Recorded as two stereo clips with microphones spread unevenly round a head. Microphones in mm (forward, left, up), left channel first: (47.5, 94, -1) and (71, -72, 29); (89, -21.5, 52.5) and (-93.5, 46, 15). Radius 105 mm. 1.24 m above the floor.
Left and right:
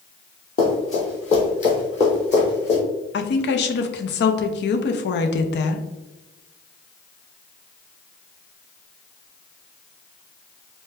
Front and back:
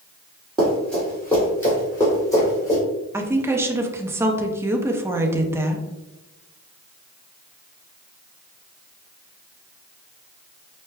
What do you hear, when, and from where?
0.6 s running footsteps: 55° left, 1.6 m; by 2.8 s 45° left, 3 m
3.1 s a woman speaking: 85° left, 0.6 m